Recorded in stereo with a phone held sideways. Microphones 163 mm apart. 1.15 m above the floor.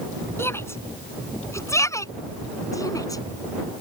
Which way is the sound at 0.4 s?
15° left (ahead or behind).